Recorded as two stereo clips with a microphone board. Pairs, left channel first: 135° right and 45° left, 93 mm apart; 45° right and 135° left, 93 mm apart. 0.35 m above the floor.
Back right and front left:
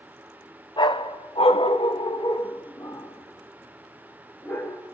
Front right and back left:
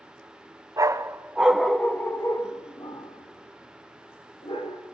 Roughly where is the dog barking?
Behind.